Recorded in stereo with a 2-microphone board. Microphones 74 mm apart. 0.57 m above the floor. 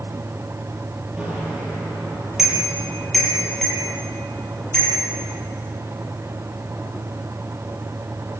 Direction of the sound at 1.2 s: 15° right (ahead or behind).